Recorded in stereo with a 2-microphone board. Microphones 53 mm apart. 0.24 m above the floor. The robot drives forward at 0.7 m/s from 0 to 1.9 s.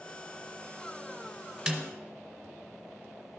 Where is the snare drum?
15° right (ahead or behind), 1.1 m; by 1.9 s 20° right (ahead or behind), 0.9 m.